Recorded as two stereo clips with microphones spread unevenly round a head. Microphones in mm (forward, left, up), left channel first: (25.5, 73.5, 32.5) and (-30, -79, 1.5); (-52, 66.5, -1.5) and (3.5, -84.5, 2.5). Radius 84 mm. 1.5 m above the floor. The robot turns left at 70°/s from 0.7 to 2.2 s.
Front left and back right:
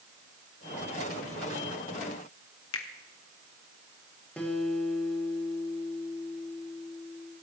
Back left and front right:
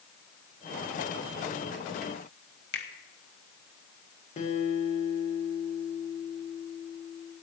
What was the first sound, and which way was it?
A finger snap, 70° left.